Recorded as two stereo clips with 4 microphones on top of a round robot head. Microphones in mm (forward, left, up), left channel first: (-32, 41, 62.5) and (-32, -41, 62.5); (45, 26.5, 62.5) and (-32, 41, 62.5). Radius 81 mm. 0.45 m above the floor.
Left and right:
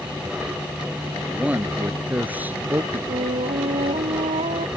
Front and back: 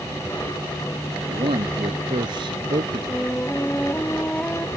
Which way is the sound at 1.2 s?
165° right.